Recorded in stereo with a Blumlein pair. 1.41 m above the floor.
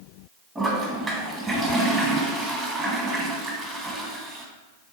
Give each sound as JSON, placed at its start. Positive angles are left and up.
{"t": 0.6, "sound": "a toilet flushing", "azimuth_deg": -10, "distance_m": 1.1}